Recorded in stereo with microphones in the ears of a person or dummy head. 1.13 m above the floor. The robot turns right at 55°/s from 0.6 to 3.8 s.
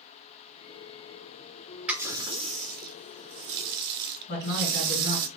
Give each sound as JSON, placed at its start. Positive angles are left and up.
{"t": 1.9, "sound": "a running tap", "azimuth_deg": -175, "distance_m": 0.5}
{"t": 4.3, "sound": "a man speaking", "side_deg": 60, "distance_m": 2.0}